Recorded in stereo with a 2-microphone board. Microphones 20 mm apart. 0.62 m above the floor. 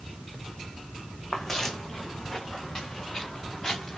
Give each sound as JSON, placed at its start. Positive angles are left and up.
{"t": 1.3, "sound": "footsteps", "side_deg": 20, "distance_m": 2.5}